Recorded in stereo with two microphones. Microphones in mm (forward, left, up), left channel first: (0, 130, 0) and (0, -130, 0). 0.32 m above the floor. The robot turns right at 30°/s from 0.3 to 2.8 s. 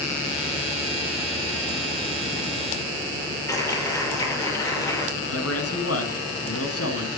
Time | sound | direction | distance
3.5 | a clap | 10° left (ahead or behind) | 7.5 m
5.2 | a man speaking | 65° left (ahead or behind) | 3 m